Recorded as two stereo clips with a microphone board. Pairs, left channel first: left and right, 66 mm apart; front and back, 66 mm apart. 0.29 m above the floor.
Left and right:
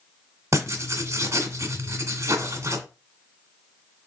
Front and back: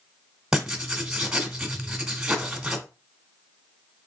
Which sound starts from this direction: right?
Writing, at 0.5 s.